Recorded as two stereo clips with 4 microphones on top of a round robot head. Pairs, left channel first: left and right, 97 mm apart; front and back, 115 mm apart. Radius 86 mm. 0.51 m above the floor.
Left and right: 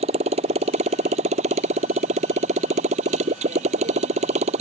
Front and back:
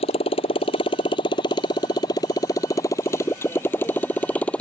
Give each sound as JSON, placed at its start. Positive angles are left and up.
{"t": 0.0, "sound": "a motorcycle", "azimuth_deg": -55}